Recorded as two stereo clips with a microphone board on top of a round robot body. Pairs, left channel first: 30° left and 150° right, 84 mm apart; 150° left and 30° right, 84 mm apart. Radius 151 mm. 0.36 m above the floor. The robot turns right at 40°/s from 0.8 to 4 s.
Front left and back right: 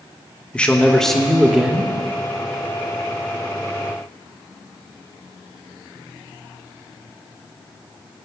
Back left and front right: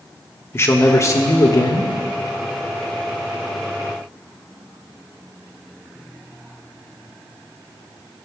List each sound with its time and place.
0.5 s a man speaking: 105° left, 1.3 m; by 1.9 s 145° left, 1.3 m